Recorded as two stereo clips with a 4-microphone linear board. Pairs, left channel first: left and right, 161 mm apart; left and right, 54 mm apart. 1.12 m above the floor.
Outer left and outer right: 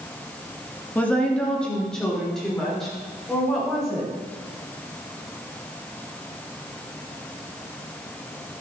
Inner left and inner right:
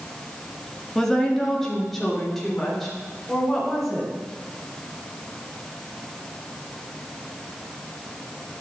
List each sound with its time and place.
0.9 s a woman speaking: 10° left (ahead or behind), 1.5 m; by 4.1 s centre (ahead or behind), 4 m